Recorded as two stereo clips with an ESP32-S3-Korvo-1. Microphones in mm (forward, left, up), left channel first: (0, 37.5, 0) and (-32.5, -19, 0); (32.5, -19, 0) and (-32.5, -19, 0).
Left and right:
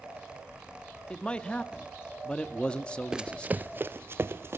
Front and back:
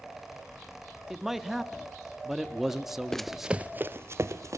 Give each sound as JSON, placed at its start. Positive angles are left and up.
{"t": 1.1, "sound": "a man speaking", "azimuth_deg": 100, "distance_m": 0.8}
{"t": 3.1, "sound": "running footsteps", "azimuth_deg": -65, "distance_m": 0.5}